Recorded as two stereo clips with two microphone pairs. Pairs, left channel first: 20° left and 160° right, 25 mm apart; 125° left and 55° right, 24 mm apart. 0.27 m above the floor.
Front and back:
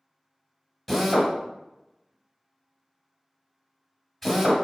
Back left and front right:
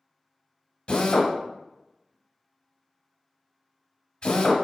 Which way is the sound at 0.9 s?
100° left.